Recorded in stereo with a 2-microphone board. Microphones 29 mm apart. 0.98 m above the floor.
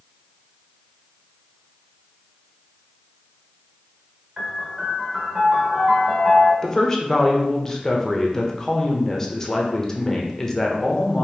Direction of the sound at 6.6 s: 20° left (ahead or behind).